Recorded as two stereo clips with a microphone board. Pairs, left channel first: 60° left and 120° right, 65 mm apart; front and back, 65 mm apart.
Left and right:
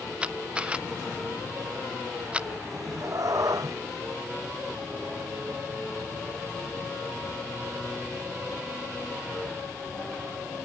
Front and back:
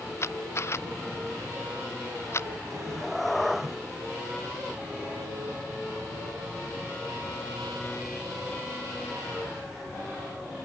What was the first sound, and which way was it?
A camera shutter, 50° right.